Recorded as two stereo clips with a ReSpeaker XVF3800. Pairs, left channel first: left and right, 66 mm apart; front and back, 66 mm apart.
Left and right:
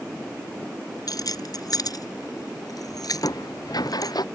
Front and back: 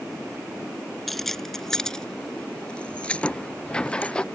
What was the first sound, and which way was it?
Keys jangling, 90° left.